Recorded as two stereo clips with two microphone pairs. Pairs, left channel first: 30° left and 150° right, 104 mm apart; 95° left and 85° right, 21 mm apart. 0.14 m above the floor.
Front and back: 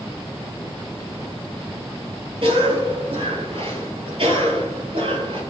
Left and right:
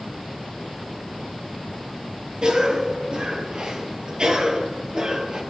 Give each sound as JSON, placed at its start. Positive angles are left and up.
{"t": 2.4, "sound": "a cough", "azimuth_deg": -130, "distance_m": 2.5}